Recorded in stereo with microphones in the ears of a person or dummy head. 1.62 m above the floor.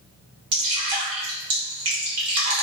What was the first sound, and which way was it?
Dripping, 30° right (ahead or behind).